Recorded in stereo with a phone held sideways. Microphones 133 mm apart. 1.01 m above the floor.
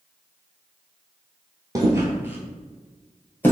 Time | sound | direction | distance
1.8 | footsteps | 25° right (ahead or behind) | 1.1 m